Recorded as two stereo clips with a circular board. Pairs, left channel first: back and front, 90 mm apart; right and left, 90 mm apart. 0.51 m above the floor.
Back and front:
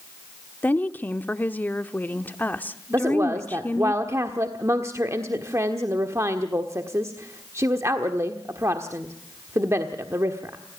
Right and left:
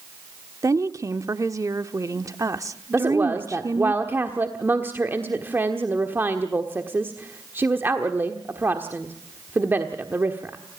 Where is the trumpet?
No trumpet in this recording.